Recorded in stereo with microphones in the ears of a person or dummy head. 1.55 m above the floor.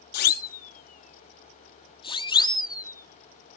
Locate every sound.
0.1 s a siren: 55° left (ahead or behind); by 3.6 s 10° left (ahead or behind)